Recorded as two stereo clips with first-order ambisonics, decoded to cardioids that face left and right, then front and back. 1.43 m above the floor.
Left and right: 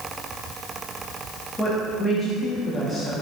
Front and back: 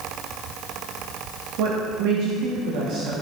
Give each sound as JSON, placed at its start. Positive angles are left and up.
{"t": 1.6, "sound": "a woman speaking", "azimuth_deg": 170, "distance_m": 2.0}